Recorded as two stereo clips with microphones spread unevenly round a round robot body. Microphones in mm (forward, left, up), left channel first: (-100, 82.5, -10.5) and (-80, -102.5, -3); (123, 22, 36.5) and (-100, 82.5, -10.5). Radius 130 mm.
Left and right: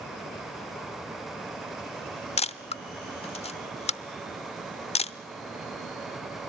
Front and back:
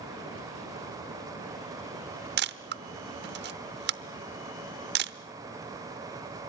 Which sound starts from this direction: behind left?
A camera shutter, at 2.4 s.